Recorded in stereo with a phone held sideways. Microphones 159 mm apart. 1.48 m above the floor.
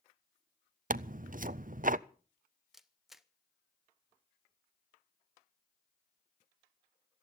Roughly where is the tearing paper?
Right.